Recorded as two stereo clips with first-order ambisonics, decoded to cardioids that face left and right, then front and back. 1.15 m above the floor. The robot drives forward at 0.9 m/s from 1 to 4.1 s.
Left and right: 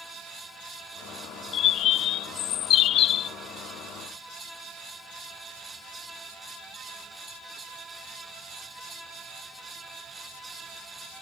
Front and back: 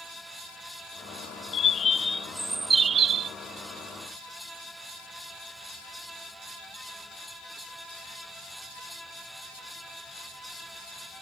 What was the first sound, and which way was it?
A bird, 50° left.